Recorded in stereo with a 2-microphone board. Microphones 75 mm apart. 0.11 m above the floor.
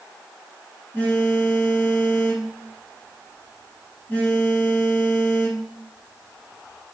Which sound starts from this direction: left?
A phone buzzing, at 0.9 s.